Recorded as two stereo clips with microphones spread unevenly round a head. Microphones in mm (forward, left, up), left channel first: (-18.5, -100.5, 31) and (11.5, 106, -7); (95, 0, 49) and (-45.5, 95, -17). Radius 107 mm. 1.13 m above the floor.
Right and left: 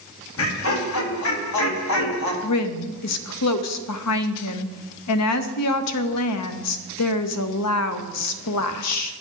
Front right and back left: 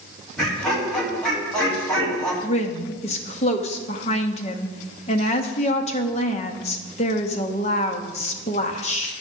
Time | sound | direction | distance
0.4 | laughter | 125° right | 2.5 m
2.4 | a woman speaking | 100° right | 0.9 m